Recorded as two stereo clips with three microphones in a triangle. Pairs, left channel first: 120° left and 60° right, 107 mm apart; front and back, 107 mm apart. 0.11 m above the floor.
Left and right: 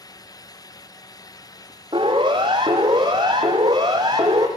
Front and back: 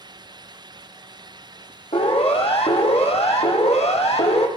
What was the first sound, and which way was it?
A siren, 15° right.